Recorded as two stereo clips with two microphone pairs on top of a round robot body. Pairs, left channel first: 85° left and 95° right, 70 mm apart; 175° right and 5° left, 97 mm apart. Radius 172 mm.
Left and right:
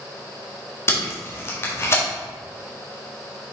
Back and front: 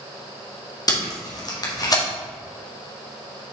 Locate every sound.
0.9 s tape being pulled: 140° left, 1.8 m